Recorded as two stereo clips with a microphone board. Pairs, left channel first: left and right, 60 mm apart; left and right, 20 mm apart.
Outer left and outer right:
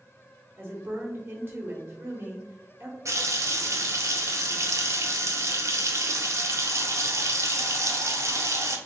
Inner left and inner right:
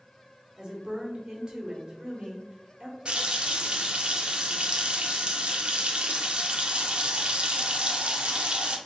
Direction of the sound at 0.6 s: 35° right (ahead or behind).